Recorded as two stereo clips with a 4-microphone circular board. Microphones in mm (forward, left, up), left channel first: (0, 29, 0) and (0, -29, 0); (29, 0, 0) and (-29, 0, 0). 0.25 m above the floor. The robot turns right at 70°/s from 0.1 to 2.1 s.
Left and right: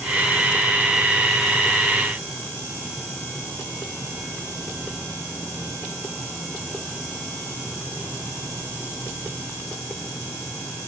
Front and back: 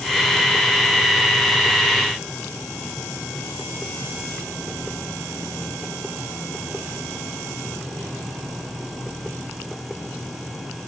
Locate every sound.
Only background noise.